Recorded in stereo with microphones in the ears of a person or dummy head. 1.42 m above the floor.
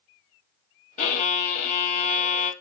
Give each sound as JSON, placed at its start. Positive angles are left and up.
{"t": 1.0, "sound": "a violin", "side_deg": 35, "distance_m": 0.9}